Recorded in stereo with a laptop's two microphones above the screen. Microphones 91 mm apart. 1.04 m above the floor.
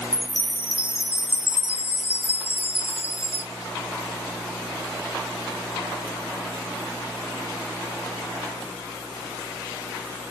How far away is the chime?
About 1.0 m.